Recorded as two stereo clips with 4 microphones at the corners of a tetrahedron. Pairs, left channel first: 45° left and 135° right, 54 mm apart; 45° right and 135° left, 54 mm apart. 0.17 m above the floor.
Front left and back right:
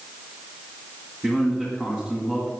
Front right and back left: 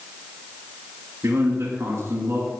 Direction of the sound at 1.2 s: 120° left.